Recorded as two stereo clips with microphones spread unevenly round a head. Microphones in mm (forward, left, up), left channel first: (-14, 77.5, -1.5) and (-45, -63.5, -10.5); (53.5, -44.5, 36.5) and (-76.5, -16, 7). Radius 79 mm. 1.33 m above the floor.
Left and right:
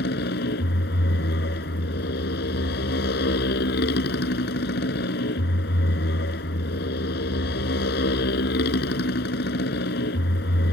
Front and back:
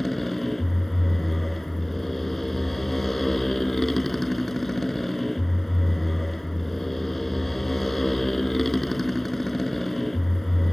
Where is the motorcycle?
75° left.